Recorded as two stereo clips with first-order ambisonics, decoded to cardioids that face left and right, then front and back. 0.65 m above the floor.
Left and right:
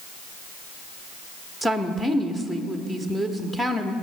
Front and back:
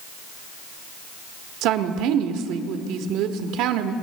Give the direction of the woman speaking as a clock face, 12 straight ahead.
6 o'clock.